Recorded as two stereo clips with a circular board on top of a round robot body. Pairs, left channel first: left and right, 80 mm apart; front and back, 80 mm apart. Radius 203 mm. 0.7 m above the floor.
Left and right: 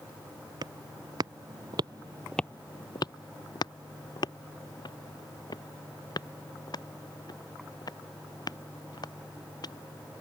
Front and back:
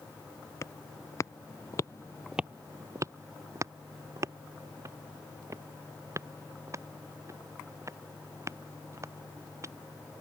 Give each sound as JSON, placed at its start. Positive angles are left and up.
{"t": 0.6, "sound": "footsteps", "azimuth_deg": -55}